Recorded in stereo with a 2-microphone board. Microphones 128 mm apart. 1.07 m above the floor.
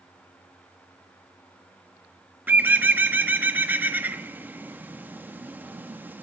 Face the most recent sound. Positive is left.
turn(degrees=-15)  # may be behind; listen again after turning